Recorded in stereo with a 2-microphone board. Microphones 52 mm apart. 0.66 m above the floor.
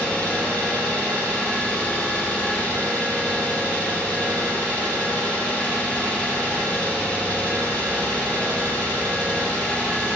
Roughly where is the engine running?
Left.